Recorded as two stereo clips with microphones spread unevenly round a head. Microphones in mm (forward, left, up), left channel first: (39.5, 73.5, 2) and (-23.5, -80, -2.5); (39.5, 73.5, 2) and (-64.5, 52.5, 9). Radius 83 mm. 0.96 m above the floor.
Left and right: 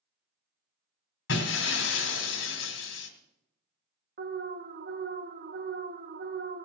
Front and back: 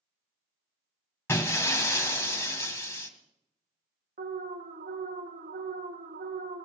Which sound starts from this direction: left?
Breaking glass, at 1.3 s.